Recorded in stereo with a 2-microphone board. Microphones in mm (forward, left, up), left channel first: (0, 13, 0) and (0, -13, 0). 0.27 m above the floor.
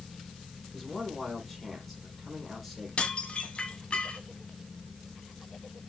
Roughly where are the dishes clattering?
Left.